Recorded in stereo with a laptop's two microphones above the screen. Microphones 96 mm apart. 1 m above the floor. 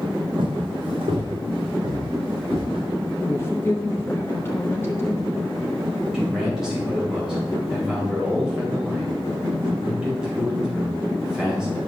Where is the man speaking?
5° right (ahead or behind), 4.5 m.